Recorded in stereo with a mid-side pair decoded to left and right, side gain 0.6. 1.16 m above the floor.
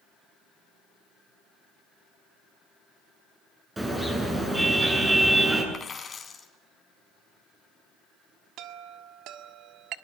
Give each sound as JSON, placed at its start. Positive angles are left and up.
{"t": 3.8, "sound": "a car horn", "azimuth_deg": -20, "distance_m": 8.5}
{"t": 5.7, "sound": "a dropped coin", "azimuth_deg": 25, "distance_m": 3.5}
{"t": 8.6, "sound": "a chime", "azimuth_deg": -65, "distance_m": 1.6}